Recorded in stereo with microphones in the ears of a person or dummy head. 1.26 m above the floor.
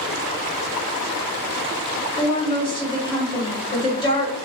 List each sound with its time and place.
2.2 s a woman speaking: 20° left (ahead or behind), 0.9 m